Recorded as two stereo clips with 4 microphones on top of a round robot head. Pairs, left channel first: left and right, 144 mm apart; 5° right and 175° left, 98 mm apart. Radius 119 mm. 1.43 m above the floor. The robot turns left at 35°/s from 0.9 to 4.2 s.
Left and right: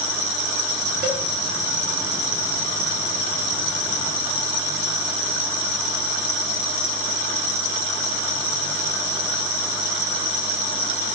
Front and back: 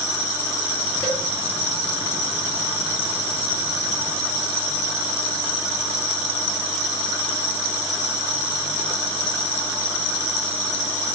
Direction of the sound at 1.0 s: 70° right.